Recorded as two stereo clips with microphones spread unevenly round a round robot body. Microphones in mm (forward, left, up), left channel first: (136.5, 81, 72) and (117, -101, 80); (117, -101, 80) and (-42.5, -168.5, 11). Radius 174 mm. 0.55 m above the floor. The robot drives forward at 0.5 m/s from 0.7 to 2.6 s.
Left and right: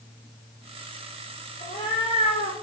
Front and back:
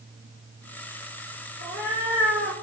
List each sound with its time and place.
1.6 s a cat meowing: 160° left, 4 m; by 2.5 s 165° left, 4.5 m